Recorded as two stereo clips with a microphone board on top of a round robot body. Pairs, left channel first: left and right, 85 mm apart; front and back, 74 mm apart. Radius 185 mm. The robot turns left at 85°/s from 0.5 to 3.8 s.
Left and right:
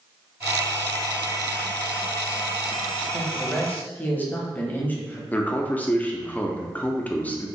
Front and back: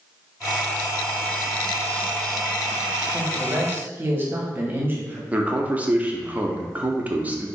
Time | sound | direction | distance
3.1 | a man speaking | 160° right | 1.2 m
5.3 | a man speaking | 140° left | 0.9 m